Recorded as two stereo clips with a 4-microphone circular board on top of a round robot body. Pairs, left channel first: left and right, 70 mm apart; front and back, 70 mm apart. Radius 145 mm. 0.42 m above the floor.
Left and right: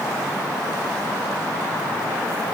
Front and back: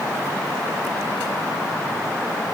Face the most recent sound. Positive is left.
No sound to turn to.